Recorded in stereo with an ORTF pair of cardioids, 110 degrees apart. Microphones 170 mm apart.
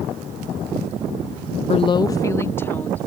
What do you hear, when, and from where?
1.7 s a woman speaking: 40° left; by 3.1 s 10° left